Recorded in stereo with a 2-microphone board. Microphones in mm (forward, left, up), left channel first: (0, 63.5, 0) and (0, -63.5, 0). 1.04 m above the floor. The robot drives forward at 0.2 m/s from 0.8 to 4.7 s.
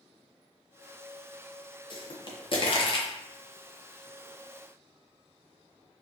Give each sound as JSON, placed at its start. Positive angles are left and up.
{"t": 1.9, "sound": "a pop", "side_deg": 45, "distance_m": 0.5}